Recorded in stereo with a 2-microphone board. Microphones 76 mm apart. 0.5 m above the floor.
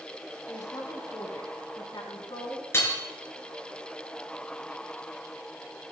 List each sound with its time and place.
0.5 s a woman speaking: 55° left (ahead or behind), 4.5 m; by 2.6 s 75° left (ahead or behind), 5.5 m
2.7 s hammering: 35° left (ahead or behind), 3 m